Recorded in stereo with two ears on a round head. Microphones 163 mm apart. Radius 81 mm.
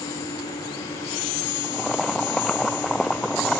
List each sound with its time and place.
1.6 s boiling: centre (ahead or behind)